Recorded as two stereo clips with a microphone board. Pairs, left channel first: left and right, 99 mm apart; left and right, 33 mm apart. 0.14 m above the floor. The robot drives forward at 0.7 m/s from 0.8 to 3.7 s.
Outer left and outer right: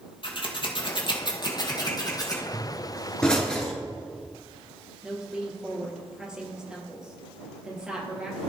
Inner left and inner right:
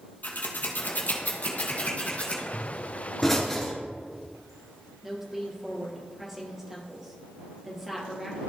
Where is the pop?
10° left (ahead or behind), 2.5 m.